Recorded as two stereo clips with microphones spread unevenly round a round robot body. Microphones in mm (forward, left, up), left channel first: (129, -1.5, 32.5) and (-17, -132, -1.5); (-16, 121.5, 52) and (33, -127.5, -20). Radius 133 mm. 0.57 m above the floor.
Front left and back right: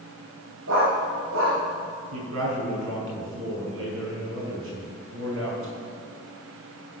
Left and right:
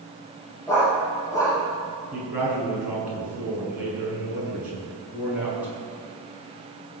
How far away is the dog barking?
About 6 m.